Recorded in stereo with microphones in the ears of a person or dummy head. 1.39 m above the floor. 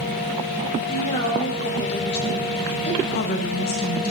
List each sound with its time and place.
0.9 s a woman speaking: 40° left (ahead or behind), 4.5 m
3.0 s a woman speaking: 50° left (ahead or behind), 1.5 m